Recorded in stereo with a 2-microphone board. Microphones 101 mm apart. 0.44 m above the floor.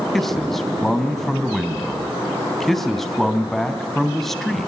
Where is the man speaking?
5° left (ahead or behind), 3 m.